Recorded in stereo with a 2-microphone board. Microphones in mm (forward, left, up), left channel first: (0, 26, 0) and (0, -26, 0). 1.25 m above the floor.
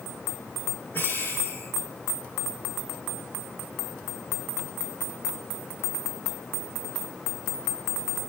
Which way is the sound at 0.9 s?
45° left (ahead or behind).